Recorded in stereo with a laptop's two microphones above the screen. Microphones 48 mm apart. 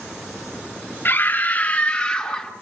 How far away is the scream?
About 2 m.